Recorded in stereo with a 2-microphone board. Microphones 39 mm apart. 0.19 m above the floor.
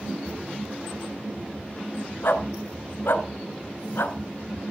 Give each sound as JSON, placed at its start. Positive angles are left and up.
{"t": 2.2, "sound": "a dog barking", "side_deg": 65, "distance_m": 1.1}